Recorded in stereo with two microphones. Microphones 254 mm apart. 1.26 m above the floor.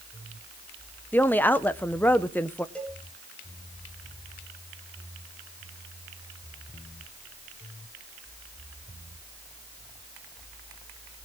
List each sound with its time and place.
1.1 s a woman speaking: 5° left (ahead or behind), 0.8 m
2.8 s a cowbell: 5° left (ahead or behind), 4 m